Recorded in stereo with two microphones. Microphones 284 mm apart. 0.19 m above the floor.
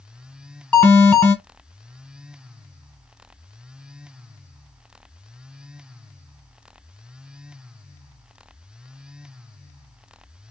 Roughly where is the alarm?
Centre.